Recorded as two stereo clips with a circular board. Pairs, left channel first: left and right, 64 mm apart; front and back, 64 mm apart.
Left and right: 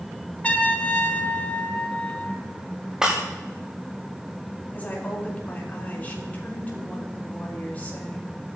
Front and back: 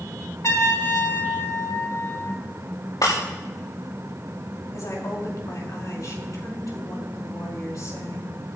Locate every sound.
0.4 s a trumpet: 25° left, 1.3 m
3.0 s breaking glass: 10° right, 6.5 m
4.7 s a woman speaking: 25° left, 5.5 m